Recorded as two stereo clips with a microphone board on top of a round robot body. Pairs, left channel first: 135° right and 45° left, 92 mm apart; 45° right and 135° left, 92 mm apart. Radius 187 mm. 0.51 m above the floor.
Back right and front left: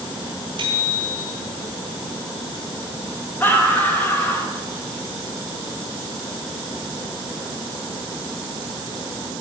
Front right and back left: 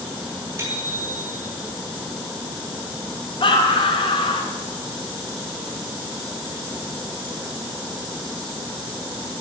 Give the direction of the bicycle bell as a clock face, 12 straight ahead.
10 o'clock.